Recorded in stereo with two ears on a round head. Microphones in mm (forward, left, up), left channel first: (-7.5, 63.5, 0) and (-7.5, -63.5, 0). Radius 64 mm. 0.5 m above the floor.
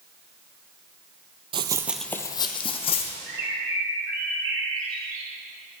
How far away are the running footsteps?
About 0.6 m.